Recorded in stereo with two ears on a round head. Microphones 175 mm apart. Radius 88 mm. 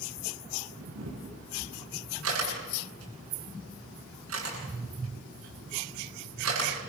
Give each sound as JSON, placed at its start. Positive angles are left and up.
{"t": 0.8, "sound": "a camera shutter", "side_deg": -75, "distance_m": 10.0}